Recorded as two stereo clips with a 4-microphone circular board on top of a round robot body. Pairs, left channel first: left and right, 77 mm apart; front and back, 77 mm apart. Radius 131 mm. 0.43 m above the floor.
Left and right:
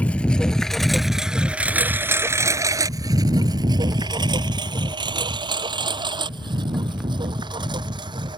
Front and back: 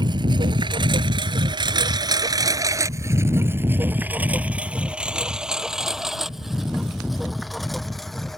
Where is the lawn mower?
165° left; by 8.4 s 85° right.